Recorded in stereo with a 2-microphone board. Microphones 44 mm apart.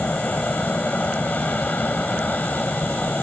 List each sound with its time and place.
0.0 s an aircraft: 40° left (ahead or behind)